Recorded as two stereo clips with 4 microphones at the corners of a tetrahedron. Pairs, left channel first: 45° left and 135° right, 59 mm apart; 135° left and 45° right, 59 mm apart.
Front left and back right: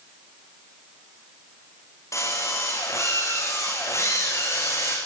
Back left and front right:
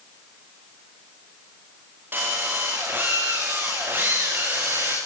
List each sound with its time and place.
2.1 s a drill: 10° left, 9 m